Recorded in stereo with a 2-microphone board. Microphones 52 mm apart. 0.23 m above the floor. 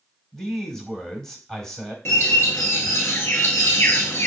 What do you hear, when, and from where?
0.3 s a man speaking: 10° left (ahead or behind), 0.9 m
2.0 s a bird: 60° left (ahead or behind), 0.8 m